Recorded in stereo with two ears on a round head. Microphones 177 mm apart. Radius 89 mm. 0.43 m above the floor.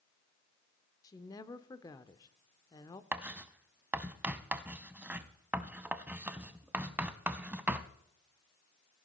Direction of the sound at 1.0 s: 20° left (ahead or behind).